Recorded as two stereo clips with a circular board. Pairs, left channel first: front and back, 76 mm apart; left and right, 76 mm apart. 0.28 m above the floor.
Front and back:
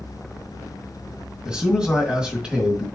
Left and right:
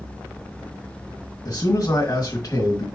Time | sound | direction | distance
1.4 | a man speaking | 105° left | 1.9 m